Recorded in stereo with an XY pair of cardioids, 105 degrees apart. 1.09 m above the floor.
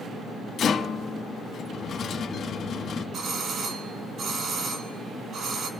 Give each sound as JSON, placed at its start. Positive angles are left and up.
{"t": 0.6, "sound": "a rattle", "azimuth_deg": 60, "distance_m": 1.4}
{"t": 3.1, "sound": "a doorbell", "azimuth_deg": -65, "distance_m": 1.6}